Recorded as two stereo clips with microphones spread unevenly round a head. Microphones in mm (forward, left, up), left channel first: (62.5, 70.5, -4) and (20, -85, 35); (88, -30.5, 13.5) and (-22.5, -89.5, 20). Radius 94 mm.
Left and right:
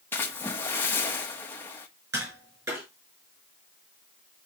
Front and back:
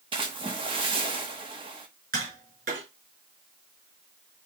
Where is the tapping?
Straight behind, 6 m.